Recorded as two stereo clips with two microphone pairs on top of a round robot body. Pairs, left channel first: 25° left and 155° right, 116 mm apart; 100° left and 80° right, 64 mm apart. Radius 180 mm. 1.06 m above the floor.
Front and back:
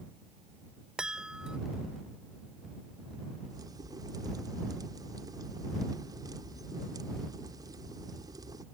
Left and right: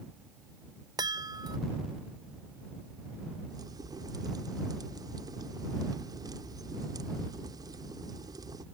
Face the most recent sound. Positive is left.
turn(degrees=-95)